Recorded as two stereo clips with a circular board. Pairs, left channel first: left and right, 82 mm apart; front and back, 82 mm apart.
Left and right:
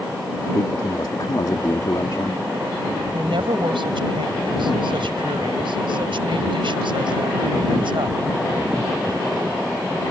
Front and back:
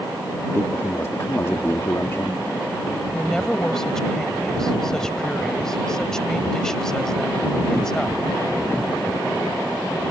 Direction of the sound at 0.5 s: 55° left.